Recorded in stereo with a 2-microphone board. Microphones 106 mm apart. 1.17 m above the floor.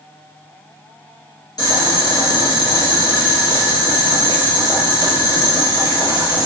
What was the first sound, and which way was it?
Boiling, 40° left (ahead or behind).